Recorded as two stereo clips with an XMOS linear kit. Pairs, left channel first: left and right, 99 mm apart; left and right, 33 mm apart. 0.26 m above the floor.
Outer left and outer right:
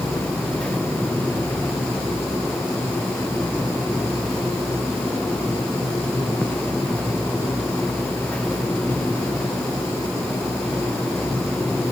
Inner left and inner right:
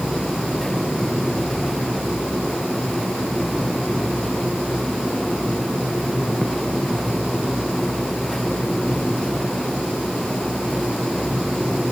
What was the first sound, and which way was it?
Only background noise.